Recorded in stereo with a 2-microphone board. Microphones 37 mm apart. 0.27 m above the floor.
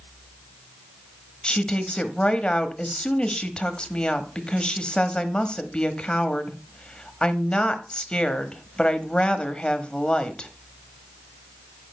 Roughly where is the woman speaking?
Left.